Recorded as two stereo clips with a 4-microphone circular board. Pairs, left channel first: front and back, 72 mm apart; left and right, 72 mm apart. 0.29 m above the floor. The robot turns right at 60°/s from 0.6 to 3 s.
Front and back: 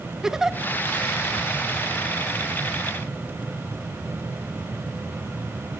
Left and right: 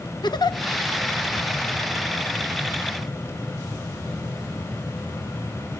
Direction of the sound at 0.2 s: 95° left.